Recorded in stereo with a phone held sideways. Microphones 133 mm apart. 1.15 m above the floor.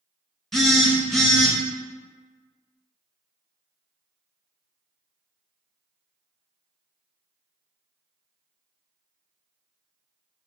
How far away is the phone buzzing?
About 0.7 m.